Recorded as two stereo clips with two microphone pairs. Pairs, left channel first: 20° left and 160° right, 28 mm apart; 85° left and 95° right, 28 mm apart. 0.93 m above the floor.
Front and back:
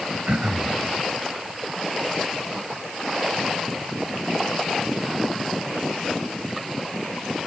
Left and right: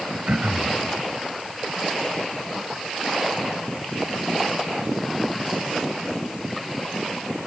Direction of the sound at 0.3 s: 125° right.